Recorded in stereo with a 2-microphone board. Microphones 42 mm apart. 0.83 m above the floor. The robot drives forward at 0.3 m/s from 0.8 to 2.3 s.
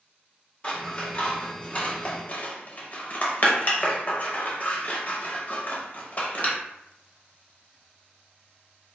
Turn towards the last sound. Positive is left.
turn(degrees=40)  # may be behind; listen again after turning